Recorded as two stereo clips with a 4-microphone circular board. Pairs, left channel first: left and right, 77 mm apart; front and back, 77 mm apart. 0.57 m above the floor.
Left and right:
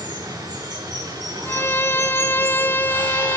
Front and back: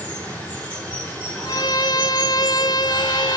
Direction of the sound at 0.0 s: 70° right.